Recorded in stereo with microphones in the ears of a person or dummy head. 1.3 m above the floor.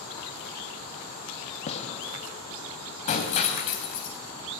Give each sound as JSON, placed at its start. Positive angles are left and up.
{"t": 1.7, "sound": "a gunshot", "side_deg": 35, "distance_m": 1.8}
{"t": 3.1, "sound": "breaking glass", "side_deg": 35, "distance_m": 3.0}